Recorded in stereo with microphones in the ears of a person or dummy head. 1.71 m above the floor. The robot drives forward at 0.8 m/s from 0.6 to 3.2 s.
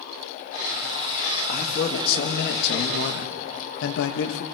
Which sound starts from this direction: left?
A man speaking, at 1.5 s.